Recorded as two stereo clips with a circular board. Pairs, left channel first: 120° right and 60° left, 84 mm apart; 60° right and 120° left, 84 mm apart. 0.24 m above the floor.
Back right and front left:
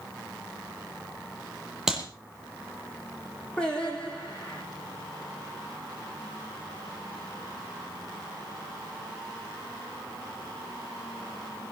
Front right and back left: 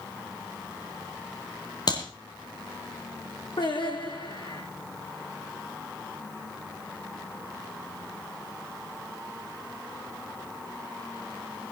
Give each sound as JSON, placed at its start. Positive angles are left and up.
{"t": 1.9, "sound": "a clap", "azimuth_deg": -25, "distance_m": 7.0}
{"t": 3.6, "sound": "singing", "azimuth_deg": -40, "distance_m": 6.5}